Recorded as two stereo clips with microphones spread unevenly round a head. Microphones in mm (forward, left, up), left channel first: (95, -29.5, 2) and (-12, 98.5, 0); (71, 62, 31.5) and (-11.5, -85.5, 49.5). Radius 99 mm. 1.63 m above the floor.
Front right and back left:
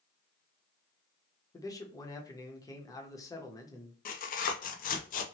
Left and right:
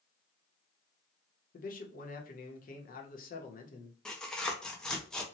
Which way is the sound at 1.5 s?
20° left.